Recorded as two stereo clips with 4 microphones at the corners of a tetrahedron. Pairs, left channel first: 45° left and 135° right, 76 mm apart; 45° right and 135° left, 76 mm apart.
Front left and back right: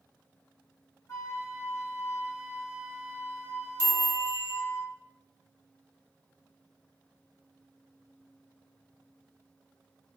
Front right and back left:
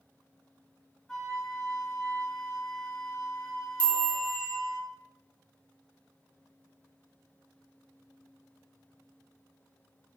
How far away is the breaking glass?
I don't hear breaking glass.